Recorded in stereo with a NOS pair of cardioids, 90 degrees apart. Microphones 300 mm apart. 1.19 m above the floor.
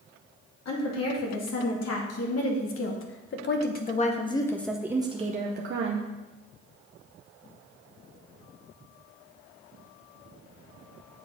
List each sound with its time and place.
0.7 s a woman speaking: 60° left, 2.5 m; by 6.1 s 60° right, 0.9 m